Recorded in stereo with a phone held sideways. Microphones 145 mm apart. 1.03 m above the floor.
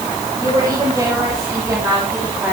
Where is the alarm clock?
I don't hear an alarm clock.